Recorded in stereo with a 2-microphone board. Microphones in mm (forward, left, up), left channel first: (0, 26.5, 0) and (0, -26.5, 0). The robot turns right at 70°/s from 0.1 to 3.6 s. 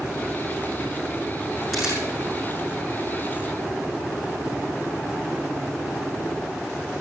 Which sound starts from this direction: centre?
A camera shutter, at 1.7 s.